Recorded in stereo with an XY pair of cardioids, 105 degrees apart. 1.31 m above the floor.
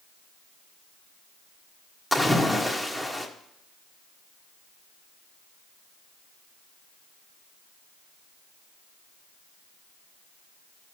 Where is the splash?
Straight ahead, 1.5 m.